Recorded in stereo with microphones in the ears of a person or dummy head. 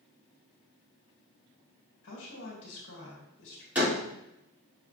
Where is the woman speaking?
75° left (ahead or behind), 2.5 m.